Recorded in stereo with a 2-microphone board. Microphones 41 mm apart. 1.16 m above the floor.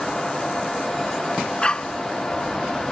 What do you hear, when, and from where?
1.6 s a dog barking: 20° left (ahead or behind)